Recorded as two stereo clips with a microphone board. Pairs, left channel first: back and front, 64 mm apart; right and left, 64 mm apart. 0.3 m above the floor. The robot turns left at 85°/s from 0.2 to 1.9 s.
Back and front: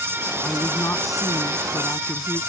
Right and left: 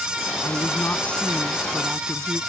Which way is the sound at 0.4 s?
100° right.